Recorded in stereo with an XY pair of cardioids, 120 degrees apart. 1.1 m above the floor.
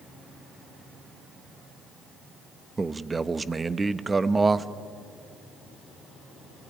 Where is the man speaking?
20° right, 1.0 m.